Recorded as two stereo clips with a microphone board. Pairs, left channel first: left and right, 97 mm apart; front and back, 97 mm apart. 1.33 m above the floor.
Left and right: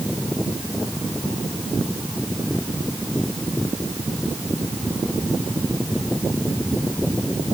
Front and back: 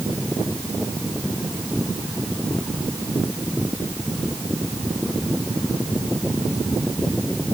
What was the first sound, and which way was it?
Only background noise.